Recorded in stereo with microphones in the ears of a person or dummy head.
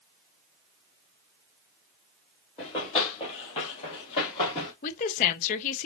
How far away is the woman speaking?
About 0.6 m.